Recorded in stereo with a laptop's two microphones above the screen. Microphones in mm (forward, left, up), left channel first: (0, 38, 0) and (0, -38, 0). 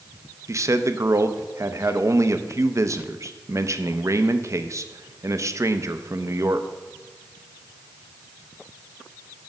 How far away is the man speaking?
About 0.6 m.